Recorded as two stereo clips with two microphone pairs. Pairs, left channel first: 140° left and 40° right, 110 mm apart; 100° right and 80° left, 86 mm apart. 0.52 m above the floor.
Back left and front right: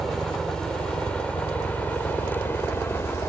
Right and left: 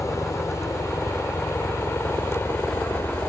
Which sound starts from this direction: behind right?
A helicopter, at 0.0 s.